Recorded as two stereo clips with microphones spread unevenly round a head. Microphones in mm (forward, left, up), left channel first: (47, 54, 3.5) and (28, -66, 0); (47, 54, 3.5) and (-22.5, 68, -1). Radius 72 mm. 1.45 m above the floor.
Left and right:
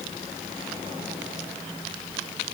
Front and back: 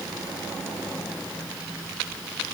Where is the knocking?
I don't hear knocking.